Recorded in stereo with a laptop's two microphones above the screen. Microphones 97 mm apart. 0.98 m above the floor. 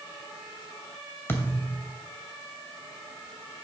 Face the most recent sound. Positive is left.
turn(degrees=20)  # may be behind; listen again after turning